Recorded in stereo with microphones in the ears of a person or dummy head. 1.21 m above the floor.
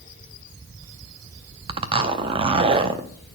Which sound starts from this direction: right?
A zipper, at 1.7 s.